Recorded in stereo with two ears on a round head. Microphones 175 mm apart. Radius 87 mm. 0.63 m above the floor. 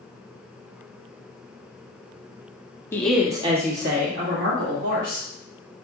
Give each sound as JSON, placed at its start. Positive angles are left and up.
{"t": 2.9, "sound": "a woman speaking", "side_deg": 10, "distance_m": 0.8}